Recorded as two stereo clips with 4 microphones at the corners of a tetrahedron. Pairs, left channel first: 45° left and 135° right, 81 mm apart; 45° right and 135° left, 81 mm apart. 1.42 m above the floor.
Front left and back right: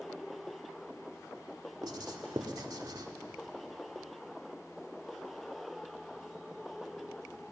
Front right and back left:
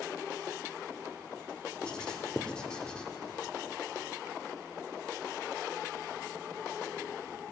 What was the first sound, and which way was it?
Writing, 120° right.